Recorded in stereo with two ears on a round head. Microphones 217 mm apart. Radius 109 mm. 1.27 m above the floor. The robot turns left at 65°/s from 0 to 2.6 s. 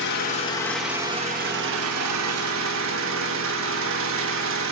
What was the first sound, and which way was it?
An engine running, 50° left.